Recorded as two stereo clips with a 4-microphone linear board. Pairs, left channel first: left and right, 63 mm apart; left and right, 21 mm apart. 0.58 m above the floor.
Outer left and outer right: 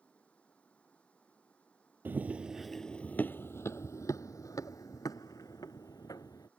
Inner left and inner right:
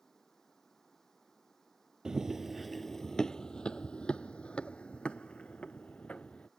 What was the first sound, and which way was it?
Running water, 20° left (ahead or behind).